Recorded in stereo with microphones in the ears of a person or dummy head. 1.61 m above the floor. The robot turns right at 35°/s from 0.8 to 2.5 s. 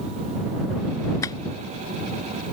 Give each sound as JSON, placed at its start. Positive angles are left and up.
{"t": 1.2, "sound": "tapping", "side_deg": 20}